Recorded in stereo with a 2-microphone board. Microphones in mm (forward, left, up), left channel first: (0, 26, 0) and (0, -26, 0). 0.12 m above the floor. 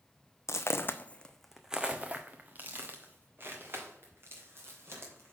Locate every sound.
0.5 s footsteps: 65° left (ahead or behind), 0.6 m; by 5.3 s 50° right (ahead or behind), 3 m